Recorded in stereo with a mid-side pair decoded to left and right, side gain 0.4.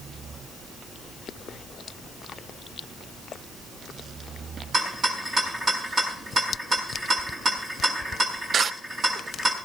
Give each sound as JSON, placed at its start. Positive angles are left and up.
{"t": 4.7, "sound": "a rattle", "azimuth_deg": -45, "distance_m": 7.5}